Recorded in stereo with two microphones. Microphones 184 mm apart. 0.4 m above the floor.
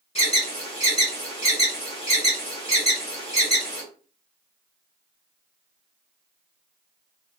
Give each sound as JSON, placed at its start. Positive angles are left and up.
{"t": 0.1, "sound": "an alarm", "side_deg": 35, "distance_m": 2.0}